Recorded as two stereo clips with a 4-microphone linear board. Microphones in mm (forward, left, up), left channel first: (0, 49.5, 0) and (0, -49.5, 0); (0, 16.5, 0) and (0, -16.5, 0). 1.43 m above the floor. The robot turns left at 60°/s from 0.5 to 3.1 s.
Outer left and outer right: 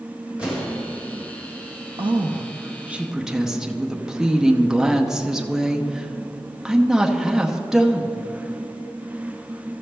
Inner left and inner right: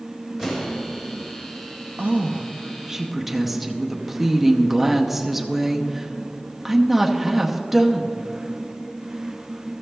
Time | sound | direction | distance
0.4 | an explosion | 10° right (ahead or behind) | 2 m
2.0 | a woman speaking | 110° right | 0.7 m